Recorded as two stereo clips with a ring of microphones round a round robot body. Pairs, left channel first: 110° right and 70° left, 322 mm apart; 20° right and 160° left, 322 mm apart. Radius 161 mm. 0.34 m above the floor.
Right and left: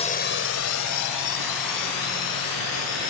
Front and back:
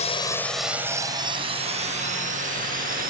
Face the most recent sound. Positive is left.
turn(degrees=-140)